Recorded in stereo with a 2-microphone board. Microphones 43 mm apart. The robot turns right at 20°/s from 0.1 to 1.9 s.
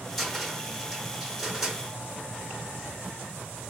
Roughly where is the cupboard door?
Centre.